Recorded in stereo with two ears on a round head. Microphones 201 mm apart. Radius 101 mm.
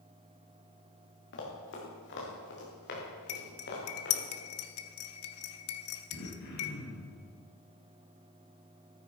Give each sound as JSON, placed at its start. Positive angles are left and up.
{"t": 1.3, "sound": "running footsteps", "side_deg": 55, "distance_m": 5.0}
{"t": 3.3, "sound": "cutlery clinking", "side_deg": 70, "distance_m": 1.0}
{"t": 6.1, "sound": "throat clearing", "side_deg": 55, "distance_m": 3.5}